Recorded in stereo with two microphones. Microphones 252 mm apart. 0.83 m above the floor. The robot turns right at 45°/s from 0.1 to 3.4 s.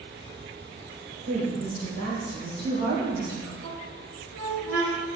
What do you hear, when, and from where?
1.3 s a woman speaking: 105° right, 3.5 m; by 3.5 s 10° right, 3.5 m
3.6 s a squeak: 70° right (ahead or behind), 1.9 m